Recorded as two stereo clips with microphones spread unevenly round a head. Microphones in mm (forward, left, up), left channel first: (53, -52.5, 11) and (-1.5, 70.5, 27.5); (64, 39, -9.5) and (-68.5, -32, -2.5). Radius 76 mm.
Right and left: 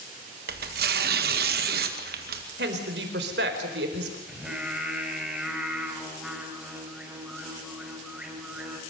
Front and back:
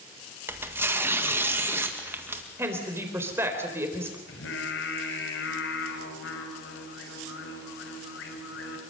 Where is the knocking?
I don't hear knocking.